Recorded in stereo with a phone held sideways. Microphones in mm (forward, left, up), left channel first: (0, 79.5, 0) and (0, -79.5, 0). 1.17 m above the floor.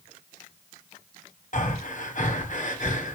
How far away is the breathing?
About 1.7 m.